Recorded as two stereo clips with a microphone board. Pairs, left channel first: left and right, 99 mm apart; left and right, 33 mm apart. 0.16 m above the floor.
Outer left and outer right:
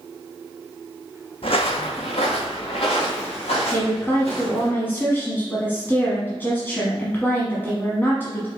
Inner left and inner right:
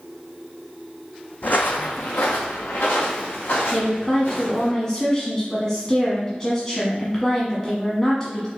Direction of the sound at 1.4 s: 70° left (ahead or behind).